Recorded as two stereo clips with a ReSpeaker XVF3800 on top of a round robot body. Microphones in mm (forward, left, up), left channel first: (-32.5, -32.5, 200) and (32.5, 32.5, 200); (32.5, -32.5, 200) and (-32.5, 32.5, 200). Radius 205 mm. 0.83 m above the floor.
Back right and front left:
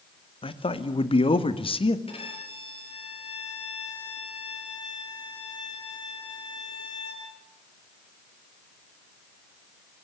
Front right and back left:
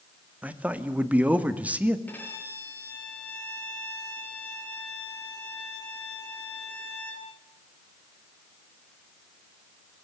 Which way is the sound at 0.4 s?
150° right.